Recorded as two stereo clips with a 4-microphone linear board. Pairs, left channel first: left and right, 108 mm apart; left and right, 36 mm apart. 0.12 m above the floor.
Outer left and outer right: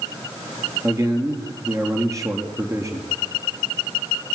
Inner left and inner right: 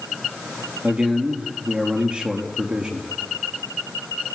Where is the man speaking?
30° right (ahead or behind), 3.5 m.